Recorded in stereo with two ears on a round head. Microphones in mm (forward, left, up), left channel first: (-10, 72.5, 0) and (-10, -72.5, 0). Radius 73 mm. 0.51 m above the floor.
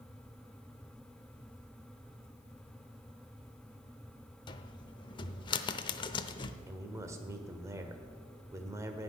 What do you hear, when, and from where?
4.5 s a cupboard door: 25° left (ahead or behind), 0.7 m
6.7 s a man speaking: 15° right (ahead or behind), 1.4 m